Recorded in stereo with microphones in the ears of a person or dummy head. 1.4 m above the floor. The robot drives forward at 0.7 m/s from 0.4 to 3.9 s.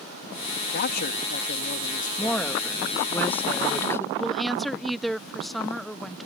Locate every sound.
0.7 s a man speaking: 60° left (ahead or behind); by 2.6 s 40° left (ahead or behind)
2.2 s a woman speaking: 5° left (ahead or behind); by 4.0 s 10° left (ahead or behind)
4.2 s a woman speaking: centre (ahead or behind)